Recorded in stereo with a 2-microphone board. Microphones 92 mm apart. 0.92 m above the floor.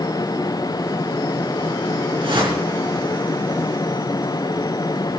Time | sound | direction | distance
2.2 | a whoosh | 60° right (ahead or behind) | 4 m